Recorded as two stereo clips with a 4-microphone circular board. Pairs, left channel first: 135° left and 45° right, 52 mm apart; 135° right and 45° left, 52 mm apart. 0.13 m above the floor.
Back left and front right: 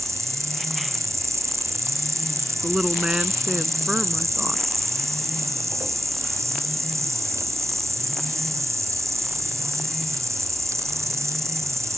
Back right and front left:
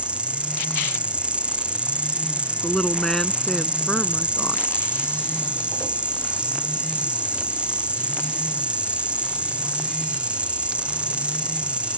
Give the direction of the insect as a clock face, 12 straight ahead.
1 o'clock.